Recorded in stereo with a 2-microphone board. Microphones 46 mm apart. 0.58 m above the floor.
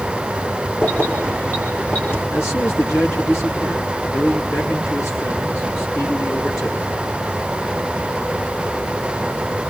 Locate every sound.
0.8 s keys jangling: 50° left (ahead or behind), 8 m; by 2.2 s 55° left (ahead or behind), 9.5 m
2.3 s a man speaking: 80° left, 7 m